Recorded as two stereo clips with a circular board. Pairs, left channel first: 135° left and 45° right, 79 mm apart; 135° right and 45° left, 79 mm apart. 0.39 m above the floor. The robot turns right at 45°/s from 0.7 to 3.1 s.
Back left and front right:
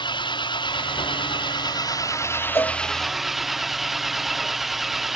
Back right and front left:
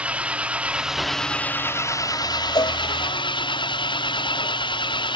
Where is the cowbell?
165° right; by 2.8 s 155° right.